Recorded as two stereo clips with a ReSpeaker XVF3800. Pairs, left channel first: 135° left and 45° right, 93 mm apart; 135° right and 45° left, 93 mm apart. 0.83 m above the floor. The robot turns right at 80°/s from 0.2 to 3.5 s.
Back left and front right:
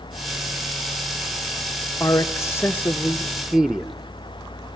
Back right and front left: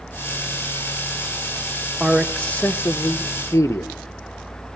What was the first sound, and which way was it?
A man speaking, 120° left.